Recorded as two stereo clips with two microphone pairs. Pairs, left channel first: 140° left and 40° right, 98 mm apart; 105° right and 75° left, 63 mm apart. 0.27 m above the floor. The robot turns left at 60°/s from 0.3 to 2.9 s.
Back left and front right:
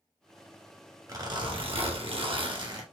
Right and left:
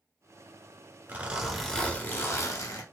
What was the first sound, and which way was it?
A zipper, 15° left.